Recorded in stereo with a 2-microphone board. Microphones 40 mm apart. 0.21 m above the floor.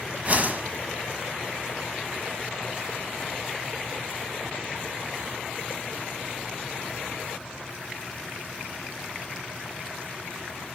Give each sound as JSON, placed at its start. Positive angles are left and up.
{"t": 0.2, "sound": "a whoosh", "side_deg": -40, "distance_m": 1.3}